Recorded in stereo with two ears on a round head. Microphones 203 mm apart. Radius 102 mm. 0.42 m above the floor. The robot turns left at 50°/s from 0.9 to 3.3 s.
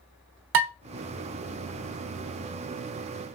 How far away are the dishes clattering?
About 1.0 m.